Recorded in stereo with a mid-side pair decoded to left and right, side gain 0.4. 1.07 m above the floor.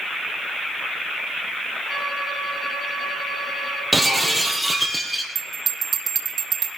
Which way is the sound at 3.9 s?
5° right.